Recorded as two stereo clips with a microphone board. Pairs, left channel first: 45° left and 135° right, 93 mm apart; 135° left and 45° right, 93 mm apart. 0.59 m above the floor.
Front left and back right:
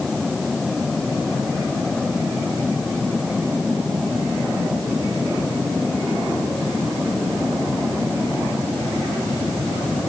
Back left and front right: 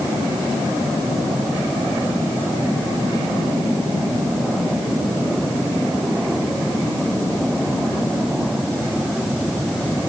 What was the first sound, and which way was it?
Only background noise.